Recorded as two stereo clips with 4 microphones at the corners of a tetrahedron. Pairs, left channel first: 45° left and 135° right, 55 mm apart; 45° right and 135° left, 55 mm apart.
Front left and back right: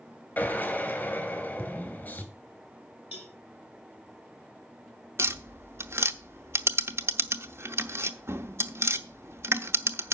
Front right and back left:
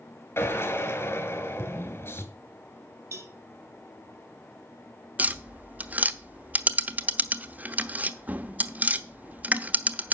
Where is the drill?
15° right, 3 m.